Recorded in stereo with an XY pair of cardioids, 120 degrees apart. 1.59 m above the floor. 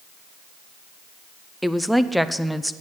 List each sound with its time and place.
1.6 s a woman speaking: straight ahead, 0.5 m